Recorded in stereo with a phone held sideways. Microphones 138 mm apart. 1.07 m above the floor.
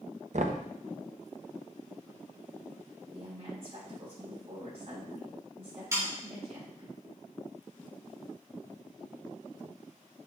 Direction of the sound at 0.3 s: 60° right (ahead or behind).